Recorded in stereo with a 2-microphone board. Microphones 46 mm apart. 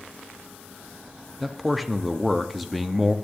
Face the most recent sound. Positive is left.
turn(degrees=0)  # may be behind; listen again after turning